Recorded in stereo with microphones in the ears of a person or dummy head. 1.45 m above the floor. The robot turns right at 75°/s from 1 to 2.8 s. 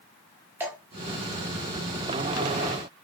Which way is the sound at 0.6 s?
15° right (ahead or behind).